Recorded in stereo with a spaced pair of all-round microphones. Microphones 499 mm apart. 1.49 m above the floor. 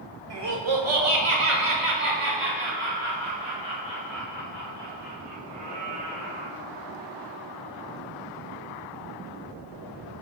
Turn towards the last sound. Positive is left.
turn(degrees=-50)  # may be behind; listen again after turning